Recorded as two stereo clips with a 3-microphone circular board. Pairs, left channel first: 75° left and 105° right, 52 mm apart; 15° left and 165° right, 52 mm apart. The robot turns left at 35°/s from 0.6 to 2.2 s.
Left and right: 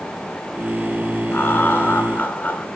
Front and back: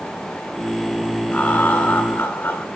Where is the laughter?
65° left, 1.9 m; by 2.6 s 30° left, 1.9 m.